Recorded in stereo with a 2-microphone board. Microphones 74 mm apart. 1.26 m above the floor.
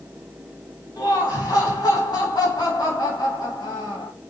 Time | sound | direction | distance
1.0 | laughter | 70° left (ahead or behind) | 1.3 m